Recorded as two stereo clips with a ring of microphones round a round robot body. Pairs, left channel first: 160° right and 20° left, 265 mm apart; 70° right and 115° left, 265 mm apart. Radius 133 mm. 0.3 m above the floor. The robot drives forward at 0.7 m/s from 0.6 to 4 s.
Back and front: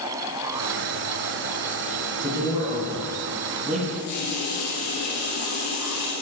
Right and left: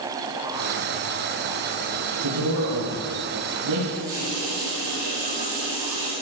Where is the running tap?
170° left, 6.5 m.